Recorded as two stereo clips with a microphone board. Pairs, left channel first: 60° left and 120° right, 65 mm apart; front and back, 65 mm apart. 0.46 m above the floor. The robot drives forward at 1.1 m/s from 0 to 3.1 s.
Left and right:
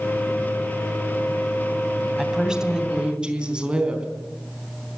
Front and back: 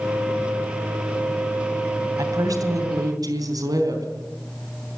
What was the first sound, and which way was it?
A woman speaking, 160° left.